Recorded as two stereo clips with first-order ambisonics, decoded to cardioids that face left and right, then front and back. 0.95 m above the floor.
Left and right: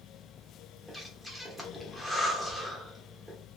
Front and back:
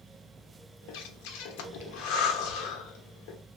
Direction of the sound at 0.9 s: Straight ahead.